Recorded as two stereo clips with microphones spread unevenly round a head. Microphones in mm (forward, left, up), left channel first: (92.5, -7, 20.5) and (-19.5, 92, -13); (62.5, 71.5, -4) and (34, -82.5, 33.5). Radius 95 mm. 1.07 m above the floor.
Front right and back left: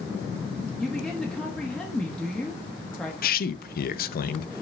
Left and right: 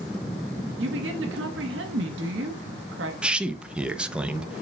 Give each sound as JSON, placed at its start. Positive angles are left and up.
{"t": 0.8, "sound": "a woman speaking", "azimuth_deg": -130, "distance_m": 1.3}
{"t": 3.2, "sound": "a man speaking", "azimuth_deg": -15, "distance_m": 0.8}